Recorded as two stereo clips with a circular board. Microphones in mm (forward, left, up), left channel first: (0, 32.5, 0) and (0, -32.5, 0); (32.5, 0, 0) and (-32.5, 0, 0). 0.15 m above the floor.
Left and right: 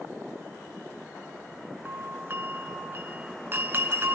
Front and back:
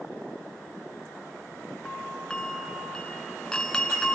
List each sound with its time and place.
1.9 s a doorbell: 70° right, 1.7 m